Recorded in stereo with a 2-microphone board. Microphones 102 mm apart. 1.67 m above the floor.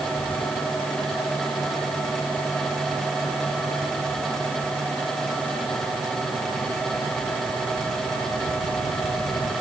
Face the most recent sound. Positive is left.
No sound to turn to.